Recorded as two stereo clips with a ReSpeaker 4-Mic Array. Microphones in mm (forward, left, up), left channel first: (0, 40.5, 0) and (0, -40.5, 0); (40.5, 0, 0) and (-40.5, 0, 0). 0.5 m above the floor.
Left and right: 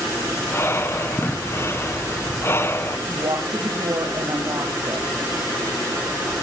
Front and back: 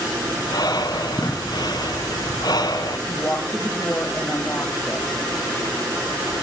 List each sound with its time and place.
0.4 s breathing: 35° left, 1.8 m
3.1 s a woman speaking: 65° right, 3.5 m